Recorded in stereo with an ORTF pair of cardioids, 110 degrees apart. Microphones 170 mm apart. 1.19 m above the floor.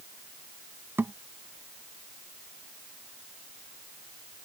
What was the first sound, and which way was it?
A thud, 10° right.